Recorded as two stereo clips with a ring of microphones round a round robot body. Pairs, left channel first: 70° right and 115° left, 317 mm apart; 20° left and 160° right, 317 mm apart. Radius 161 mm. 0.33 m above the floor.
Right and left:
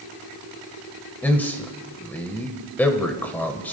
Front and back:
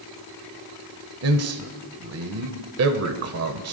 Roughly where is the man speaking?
Behind right.